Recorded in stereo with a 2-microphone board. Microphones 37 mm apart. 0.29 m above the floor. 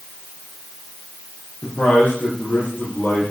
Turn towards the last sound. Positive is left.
turn(degrees=45)  # may be behind; listen again after turning